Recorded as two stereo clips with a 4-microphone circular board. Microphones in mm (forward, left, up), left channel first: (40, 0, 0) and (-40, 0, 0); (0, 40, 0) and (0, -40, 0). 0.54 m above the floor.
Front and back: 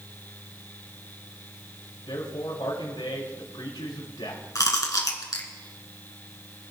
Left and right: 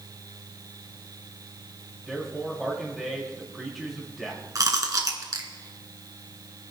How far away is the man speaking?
About 5 m.